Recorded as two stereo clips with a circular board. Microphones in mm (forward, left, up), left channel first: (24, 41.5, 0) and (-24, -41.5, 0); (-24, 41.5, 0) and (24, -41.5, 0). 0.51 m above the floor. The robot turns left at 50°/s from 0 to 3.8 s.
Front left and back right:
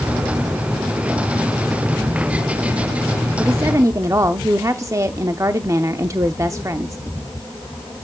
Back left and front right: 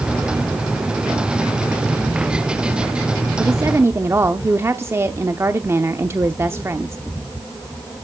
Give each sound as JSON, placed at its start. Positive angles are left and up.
{"t": 3.4, "sound": "a woman speaking", "azimuth_deg": -75, "distance_m": 0.8}